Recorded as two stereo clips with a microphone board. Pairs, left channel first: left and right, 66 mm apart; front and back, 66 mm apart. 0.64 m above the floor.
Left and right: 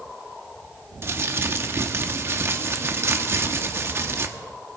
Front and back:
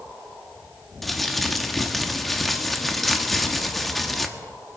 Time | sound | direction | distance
1.0 | crumpling | 85° right | 1.0 m